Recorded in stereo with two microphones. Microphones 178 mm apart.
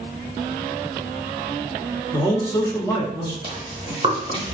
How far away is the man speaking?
About 0.8 m.